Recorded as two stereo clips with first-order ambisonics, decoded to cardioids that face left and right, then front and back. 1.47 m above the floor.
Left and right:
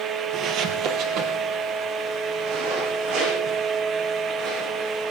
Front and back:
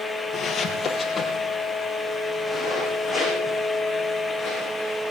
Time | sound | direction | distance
0.3 | footsteps | 60° right | 2 m